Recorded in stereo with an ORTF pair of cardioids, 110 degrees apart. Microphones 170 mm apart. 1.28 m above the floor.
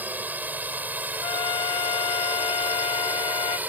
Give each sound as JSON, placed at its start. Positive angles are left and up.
{"t": 0.0, "sound": "a drone", "azimuth_deg": -10}
{"t": 1.2, "sound": "a trumpet", "azimuth_deg": 35}